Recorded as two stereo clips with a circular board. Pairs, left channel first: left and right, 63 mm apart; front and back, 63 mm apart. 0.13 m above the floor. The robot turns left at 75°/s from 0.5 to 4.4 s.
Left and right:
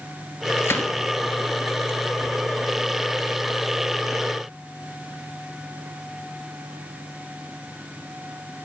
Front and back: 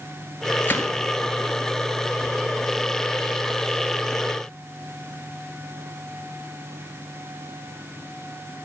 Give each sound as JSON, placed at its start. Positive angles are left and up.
{"t": 0.6, "sound": "a gunshot", "azimuth_deg": 55, "distance_m": 1.7}